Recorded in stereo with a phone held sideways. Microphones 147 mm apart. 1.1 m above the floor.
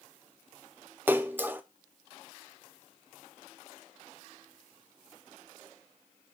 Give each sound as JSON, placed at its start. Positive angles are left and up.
{"t": 1.1, "sound": "a splash", "side_deg": -15, "distance_m": 0.5}